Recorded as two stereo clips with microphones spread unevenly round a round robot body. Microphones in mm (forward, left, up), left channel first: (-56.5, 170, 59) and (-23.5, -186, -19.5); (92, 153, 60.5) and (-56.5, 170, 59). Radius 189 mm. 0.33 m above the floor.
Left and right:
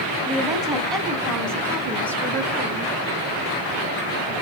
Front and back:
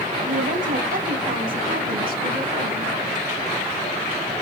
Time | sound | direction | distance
0.3 | a woman speaking | 165° right | 2.5 m